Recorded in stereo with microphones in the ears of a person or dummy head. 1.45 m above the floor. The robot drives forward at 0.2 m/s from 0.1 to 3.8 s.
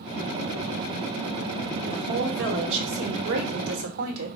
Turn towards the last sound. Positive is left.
turn(degrees=-70)  # may be behind; listen again after turning